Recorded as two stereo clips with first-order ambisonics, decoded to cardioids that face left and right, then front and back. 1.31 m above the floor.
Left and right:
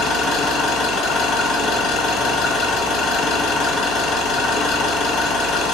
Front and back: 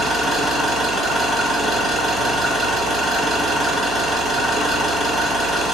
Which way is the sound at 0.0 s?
115° left.